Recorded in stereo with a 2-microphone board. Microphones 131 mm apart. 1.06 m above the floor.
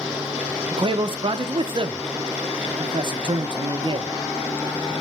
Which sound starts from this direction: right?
A man speaking, at 0.7 s.